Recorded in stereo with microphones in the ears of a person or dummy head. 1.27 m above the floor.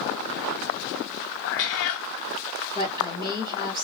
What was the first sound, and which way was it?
A cat meowing, 45° left (ahead or behind).